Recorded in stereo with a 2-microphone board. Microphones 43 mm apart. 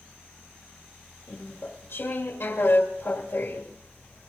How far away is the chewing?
About 2 m.